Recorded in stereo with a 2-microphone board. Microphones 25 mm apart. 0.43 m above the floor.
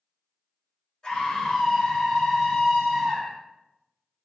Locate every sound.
1.0 s a scream: 40° left (ahead or behind), 1.7 m; by 3.4 s 30° left (ahead or behind), 1.9 m